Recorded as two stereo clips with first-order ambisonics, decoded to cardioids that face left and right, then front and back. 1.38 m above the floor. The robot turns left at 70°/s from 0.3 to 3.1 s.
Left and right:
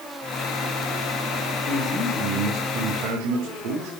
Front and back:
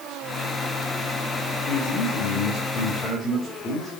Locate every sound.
1.7 s a man speaking: 30° left, 2.5 m; by 3.9 s 70° right, 2.5 m